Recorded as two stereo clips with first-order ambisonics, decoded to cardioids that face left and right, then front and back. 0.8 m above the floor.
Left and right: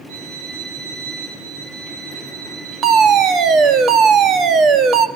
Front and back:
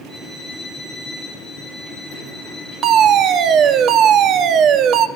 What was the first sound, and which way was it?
A violin, 90° right.